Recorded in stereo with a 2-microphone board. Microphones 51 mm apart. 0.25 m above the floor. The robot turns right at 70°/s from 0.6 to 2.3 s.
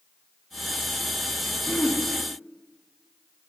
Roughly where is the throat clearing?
Left.